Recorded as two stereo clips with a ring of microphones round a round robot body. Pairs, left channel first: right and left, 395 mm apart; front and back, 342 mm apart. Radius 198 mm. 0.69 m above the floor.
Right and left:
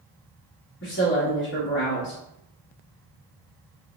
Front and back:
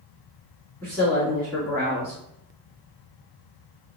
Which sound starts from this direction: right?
A woman speaking, at 0.8 s.